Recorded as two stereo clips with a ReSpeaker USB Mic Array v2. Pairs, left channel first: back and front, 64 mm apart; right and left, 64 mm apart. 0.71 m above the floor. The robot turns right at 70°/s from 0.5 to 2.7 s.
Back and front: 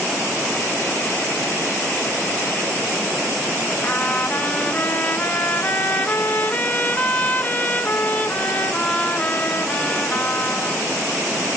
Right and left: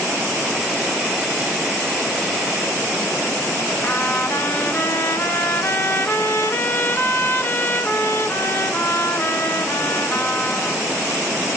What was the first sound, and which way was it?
A trumpet, 125° right.